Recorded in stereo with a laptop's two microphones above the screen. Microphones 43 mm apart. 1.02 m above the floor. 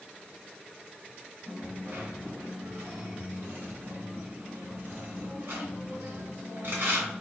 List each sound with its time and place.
1.5 s a dropped coin: 60° right (ahead or behind), 2 m